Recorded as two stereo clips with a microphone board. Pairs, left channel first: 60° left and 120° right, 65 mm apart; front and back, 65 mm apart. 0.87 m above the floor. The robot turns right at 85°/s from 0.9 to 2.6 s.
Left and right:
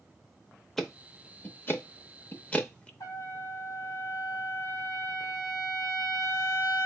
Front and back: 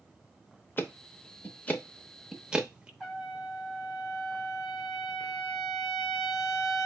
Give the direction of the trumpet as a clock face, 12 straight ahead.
9 o'clock.